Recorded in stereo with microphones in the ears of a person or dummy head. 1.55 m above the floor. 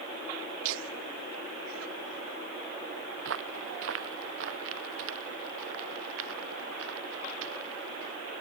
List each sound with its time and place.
0.6 s laughter: 70° right (ahead or behind); by 2.4 s 85° right
3.2 s footsteps: 75° right (ahead or behind); by 8.2 s 80° right